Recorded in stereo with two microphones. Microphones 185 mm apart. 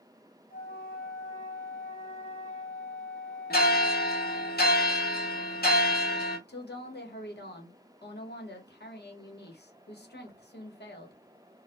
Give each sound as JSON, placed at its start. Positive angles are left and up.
{"t": 0.5, "sound": "a flute", "side_deg": 50, "distance_m": 1.5}
{"t": 3.5, "sound": "a bell", "side_deg": 60, "distance_m": 0.9}
{"t": 6.5, "sound": "a woman speaking", "side_deg": 70, "distance_m": 0.9}